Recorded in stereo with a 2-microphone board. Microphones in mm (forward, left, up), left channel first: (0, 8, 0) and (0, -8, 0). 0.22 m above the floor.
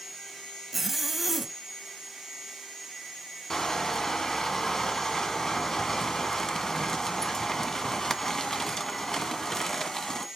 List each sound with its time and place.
0.7 s a zipper: 5° right (ahead or behind), 1.0 m
3.5 s crushing: 35° left (ahead or behind), 1.3 m